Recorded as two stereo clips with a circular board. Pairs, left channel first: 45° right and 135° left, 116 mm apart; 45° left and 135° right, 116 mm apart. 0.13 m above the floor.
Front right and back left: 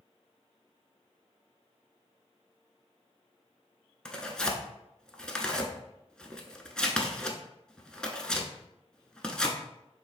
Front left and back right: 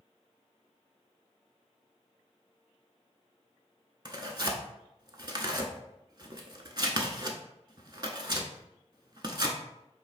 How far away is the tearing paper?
About 0.5 m.